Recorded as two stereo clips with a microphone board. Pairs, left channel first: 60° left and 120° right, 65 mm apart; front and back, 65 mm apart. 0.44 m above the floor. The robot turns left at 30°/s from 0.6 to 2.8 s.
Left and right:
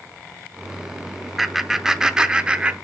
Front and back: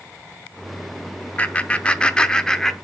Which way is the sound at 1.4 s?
35° right.